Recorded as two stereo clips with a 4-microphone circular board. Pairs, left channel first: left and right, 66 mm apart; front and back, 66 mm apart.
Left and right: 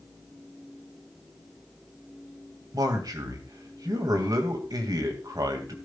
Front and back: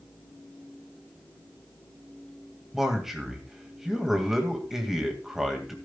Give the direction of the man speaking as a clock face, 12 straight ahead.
3 o'clock.